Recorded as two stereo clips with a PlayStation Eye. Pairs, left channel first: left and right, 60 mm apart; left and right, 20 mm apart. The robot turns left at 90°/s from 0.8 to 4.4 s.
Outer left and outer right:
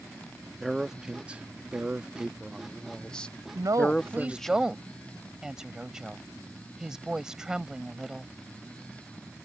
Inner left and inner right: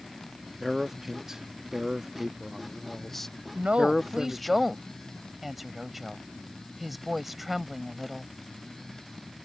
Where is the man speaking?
5° right (ahead or behind); by 4.5 s 5° left (ahead or behind).